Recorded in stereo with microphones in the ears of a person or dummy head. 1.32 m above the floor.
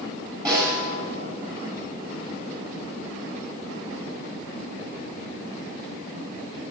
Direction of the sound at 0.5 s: 20° right (ahead or behind).